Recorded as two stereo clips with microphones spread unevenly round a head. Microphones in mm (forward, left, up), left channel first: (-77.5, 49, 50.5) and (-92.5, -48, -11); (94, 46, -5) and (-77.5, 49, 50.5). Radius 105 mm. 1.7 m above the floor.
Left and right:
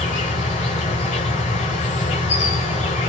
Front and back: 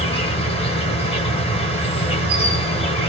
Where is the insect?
45° left, 2.5 m.